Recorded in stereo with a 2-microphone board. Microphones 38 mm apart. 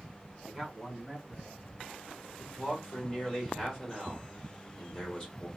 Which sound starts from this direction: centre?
A man speaking, at 0.5 s.